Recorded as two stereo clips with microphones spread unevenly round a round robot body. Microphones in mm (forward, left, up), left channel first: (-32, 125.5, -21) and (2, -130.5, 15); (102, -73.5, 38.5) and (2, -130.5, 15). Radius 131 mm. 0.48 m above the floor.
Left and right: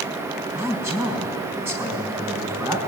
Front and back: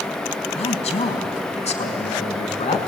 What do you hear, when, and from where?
0.6 s a man speaking: straight ahead, 4 m